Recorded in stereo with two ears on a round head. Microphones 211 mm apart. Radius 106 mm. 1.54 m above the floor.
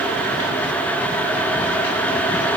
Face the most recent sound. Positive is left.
No sound to turn to.